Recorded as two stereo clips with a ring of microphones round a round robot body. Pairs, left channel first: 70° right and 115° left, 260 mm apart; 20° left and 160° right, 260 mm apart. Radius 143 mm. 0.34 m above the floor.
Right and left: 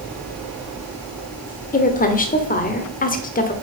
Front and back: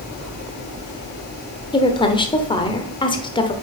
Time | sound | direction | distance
1.7 | a woman speaking | 35° right | 1.1 m